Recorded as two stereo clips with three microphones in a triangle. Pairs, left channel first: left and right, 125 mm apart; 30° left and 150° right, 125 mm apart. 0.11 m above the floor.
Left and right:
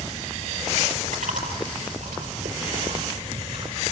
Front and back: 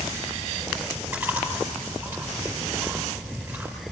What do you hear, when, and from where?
1.1 s chewing: 80° right, 5 m